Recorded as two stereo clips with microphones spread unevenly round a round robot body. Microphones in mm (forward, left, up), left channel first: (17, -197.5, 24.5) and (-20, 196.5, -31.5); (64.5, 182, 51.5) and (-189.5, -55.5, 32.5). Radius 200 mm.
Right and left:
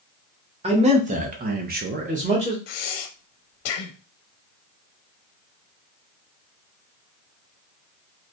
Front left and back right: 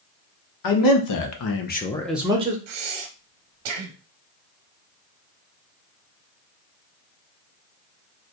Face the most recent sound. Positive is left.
turn(degrees=-110)